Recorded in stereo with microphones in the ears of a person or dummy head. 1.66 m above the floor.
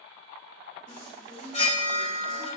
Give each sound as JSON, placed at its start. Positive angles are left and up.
{"t": 0.9, "sound": "a chime", "side_deg": 40, "distance_m": 1.8}